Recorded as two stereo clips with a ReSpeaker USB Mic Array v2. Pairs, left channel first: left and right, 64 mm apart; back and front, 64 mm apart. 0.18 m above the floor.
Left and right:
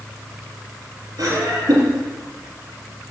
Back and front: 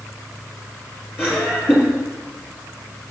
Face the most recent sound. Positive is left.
turn(degrees=-120)